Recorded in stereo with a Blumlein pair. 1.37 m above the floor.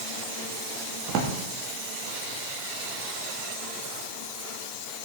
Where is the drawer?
40° right, 1.5 m.